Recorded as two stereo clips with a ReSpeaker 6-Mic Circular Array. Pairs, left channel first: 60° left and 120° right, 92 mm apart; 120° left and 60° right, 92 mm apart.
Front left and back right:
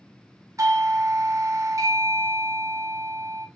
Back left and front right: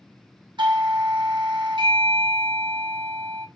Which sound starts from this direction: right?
A doorbell, at 0.6 s.